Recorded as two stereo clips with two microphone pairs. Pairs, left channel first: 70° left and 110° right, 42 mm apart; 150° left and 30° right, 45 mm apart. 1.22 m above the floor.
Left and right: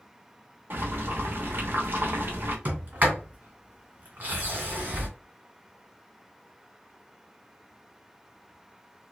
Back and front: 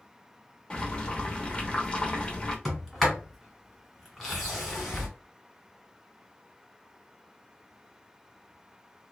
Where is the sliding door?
125° right, 1.3 m.